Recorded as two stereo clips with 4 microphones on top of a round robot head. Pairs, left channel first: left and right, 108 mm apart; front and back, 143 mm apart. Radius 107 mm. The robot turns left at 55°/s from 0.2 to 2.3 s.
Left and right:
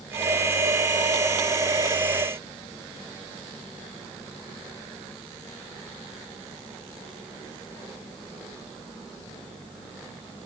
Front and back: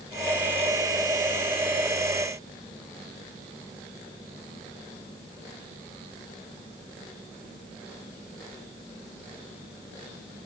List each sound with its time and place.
Only background noise.